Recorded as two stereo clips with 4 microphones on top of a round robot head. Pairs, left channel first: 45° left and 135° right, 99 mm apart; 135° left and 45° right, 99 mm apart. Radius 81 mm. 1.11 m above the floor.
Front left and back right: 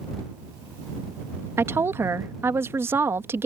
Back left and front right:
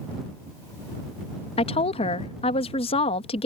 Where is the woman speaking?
160° left.